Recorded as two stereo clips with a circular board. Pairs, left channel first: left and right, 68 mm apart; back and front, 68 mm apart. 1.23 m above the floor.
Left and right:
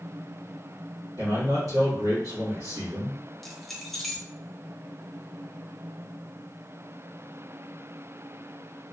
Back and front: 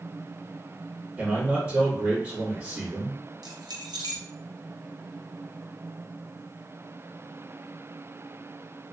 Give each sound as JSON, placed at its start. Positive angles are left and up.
{"t": 1.2, "sound": "a man speaking", "azimuth_deg": -65, "distance_m": 2.0}
{"t": 3.4, "sound": "keys jangling", "azimuth_deg": 5, "distance_m": 0.8}